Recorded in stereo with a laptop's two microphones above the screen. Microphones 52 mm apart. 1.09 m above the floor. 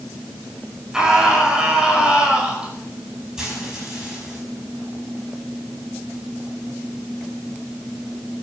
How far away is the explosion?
No explosion in this recording.